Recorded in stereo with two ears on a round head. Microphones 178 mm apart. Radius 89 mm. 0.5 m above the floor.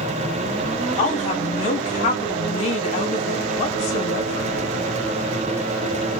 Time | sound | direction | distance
1.0 | a woman speaking | 35° left (ahead or behind) | 1.5 m